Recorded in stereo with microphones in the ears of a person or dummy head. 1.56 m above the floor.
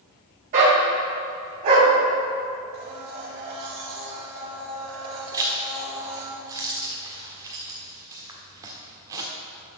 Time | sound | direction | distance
0.5 | a dog barking | 45° right (ahead or behind) | 2.0 m
2.7 | a blender | 50° right (ahead or behind) | 2 m
5.3 | a zipper | 15° right (ahead or behind) | 1.4 m